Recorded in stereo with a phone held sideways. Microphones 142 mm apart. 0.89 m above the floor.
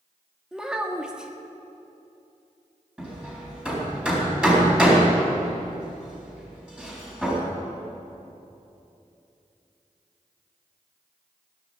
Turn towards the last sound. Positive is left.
turn(degrees=-10)  # may be behind; listen again after turning